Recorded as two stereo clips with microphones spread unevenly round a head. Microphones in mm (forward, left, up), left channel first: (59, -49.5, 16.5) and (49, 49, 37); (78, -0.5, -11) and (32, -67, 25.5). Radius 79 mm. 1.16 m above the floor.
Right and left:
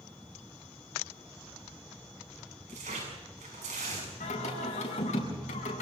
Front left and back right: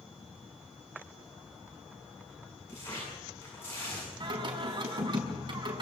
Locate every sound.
2.7 s tearing paper: 135° left, 7.5 m
4.2 s singing: 110° right, 7 m